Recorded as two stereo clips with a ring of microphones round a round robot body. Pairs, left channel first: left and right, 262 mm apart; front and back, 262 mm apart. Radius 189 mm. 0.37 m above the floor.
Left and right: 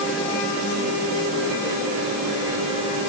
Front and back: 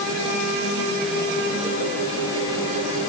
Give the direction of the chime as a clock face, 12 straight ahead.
I don't hear a chime.